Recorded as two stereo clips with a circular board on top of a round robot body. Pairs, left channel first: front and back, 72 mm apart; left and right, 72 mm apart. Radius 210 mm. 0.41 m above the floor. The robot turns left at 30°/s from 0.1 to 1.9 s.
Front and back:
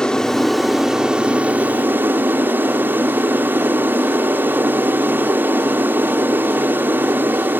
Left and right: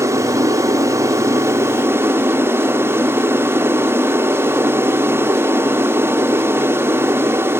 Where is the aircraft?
75° right; by 7.6 s 130° right.